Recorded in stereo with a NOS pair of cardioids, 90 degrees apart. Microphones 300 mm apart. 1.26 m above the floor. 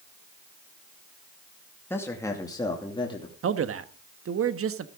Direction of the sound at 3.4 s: 45° right.